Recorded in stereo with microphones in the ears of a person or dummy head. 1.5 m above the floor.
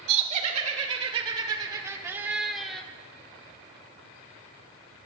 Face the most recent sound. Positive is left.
turn(degrees=5)  # may be behind; listen again after turning